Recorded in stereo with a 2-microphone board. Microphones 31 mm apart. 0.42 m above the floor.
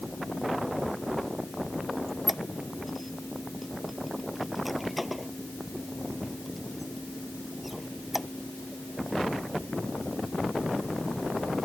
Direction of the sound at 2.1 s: 5° right (ahead or behind).